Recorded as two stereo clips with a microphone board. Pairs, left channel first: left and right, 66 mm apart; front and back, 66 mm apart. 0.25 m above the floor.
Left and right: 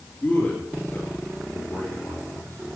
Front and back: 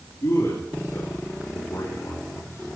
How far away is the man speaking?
About 5 m.